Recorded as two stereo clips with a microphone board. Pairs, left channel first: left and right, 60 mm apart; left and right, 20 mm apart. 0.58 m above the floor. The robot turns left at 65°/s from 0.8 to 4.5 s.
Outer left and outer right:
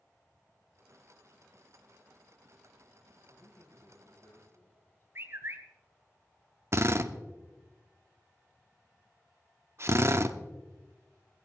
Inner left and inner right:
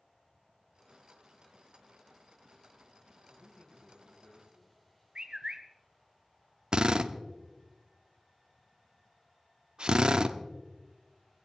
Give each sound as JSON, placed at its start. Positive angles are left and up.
{"t": 3.3, "sound": "a man speaking", "azimuth_deg": 135, "distance_m": 5.5}
{"t": 5.2, "sound": "a bird", "side_deg": -40, "distance_m": 1.5}
{"t": 6.7, "sound": "a drill", "side_deg": -45, "distance_m": 0.8}